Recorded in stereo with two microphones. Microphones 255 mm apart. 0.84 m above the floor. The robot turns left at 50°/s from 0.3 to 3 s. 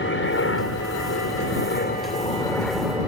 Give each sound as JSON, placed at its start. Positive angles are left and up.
{"t": 0.0, "sound": "a helicopter", "azimuth_deg": 125}